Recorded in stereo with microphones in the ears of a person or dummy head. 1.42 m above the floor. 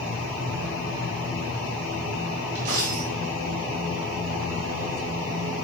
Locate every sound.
2.5 s a dropped coin: 25° right (ahead or behind), 1.2 m